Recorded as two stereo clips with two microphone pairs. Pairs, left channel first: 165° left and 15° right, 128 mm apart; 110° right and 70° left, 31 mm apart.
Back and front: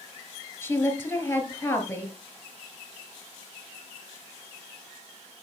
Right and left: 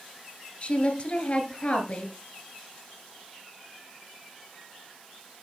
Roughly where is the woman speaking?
Behind right.